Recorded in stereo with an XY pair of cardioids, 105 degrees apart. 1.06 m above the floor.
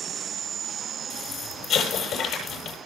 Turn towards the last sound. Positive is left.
turn(degrees=70)